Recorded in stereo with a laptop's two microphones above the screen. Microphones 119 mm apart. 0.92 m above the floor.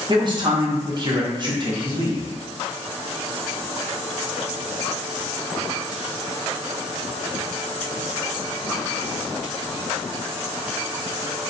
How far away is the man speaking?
About 0.6 m.